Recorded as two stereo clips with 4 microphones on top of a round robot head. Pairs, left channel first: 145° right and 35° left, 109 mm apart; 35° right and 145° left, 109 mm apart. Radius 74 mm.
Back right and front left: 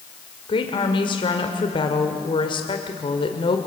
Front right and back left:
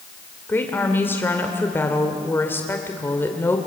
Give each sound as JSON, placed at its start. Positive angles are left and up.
{"t": 0.5, "sound": "a woman speaking", "azimuth_deg": -105, "distance_m": 2.0}